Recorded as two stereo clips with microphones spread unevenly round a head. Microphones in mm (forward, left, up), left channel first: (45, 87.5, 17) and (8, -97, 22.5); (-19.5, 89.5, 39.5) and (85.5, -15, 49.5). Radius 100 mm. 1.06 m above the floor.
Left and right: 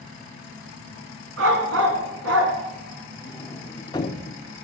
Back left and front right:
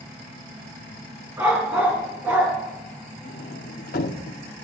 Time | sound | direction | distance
1.4 | a dog barking | 125° right | 3 m
3.2 | a sliding door | 145° left | 0.7 m